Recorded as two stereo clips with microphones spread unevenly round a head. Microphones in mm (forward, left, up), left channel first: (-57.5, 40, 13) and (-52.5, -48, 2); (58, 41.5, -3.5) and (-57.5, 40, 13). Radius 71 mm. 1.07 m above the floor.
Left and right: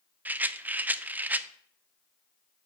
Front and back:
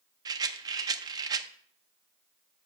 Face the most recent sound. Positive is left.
turn(degrees=-155)